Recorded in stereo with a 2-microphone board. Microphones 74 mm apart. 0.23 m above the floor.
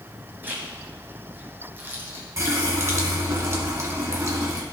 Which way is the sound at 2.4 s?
40° right (ahead or behind).